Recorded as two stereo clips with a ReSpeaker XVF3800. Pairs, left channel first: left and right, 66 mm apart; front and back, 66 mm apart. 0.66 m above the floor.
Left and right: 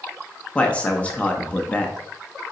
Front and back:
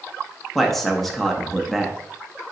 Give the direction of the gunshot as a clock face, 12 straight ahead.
I don't hear a gunshot.